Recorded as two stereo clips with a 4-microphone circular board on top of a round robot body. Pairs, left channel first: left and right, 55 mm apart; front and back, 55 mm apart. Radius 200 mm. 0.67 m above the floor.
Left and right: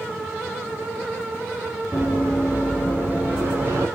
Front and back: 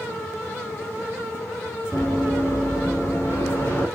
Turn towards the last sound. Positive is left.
turn(degrees=-80)